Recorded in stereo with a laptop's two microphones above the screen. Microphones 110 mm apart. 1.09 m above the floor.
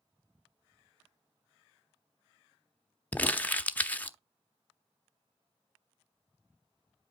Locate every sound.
3.1 s crumpling: 15° left (ahead or behind), 0.7 m